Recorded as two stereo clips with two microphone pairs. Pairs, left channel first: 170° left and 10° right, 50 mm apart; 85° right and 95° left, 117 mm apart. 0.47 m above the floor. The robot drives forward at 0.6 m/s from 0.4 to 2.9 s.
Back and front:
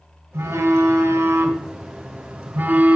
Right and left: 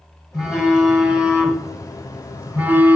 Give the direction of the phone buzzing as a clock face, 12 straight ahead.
12 o'clock.